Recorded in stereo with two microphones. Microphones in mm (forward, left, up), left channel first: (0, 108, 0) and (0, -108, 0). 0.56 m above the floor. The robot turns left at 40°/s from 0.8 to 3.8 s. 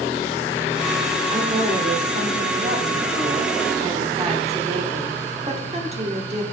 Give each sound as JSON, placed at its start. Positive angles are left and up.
{"t": 1.3, "sound": "a woman speaking", "azimuth_deg": -45, "distance_m": 1.3}